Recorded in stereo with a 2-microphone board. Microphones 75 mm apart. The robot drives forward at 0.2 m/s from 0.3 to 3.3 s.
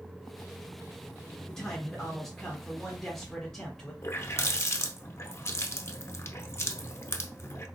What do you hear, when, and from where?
1.5 s a man speaking: 10° left (ahead or behind), 1.4 m; by 3.9 s 5° left (ahead or behind), 1.5 m
4.0 s a running tap: 40° left (ahead or behind), 0.6 m